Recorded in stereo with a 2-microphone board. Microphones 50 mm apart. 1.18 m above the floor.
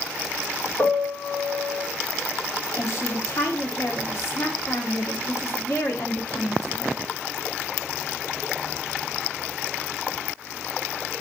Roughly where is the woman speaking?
Left.